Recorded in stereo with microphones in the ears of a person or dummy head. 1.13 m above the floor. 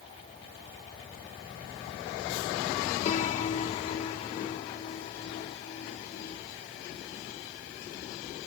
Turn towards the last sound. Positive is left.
turn(degrees=40)  # may be behind; listen again after turning